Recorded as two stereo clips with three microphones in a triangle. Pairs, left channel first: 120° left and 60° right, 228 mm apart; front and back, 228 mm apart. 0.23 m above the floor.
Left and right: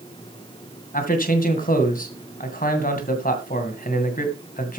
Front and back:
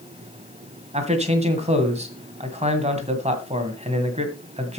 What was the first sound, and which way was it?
A man speaking, 135° left.